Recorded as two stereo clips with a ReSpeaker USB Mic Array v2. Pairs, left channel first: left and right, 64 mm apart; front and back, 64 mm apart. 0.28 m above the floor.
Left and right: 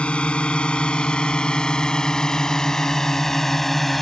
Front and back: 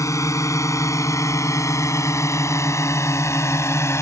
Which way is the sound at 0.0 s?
20° left.